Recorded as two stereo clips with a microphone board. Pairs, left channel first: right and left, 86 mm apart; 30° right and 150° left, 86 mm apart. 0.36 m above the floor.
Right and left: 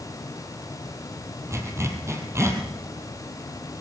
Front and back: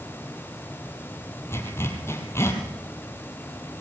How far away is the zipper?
About 3.5 m.